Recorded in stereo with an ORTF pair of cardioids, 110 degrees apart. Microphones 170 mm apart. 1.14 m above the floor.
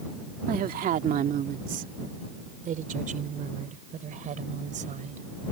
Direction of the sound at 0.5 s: 60° right.